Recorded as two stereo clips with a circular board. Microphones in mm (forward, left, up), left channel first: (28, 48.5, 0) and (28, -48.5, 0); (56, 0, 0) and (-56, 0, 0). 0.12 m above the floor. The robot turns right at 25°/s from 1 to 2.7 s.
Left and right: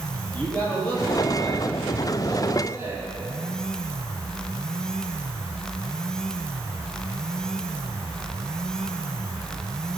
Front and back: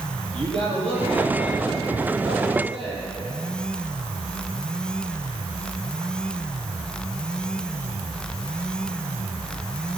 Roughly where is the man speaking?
Behind.